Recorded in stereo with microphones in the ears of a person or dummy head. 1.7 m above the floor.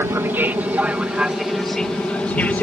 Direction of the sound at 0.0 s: 15° right (ahead or behind).